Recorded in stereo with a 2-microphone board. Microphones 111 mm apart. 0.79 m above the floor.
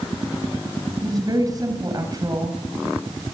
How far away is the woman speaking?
About 5 m.